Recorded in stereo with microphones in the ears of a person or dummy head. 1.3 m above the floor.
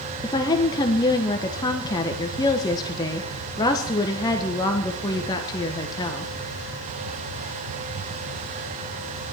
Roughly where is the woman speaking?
Left.